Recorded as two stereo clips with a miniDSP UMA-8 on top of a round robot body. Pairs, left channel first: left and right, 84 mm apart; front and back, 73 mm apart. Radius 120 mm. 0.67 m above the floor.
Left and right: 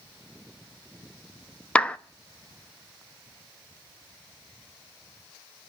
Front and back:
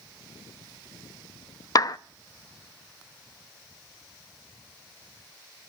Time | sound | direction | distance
1.8 | a clap | 15° left | 1.0 m